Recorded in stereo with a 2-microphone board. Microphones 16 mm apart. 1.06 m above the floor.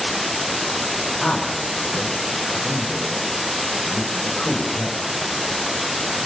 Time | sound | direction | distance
1.2 | a man speaking | 35° left (ahead or behind) | 5.5 m